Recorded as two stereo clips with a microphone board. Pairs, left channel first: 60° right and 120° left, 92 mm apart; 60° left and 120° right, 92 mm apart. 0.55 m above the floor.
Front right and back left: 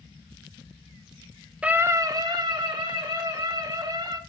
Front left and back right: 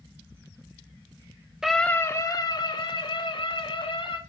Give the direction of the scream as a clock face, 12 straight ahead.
6 o'clock.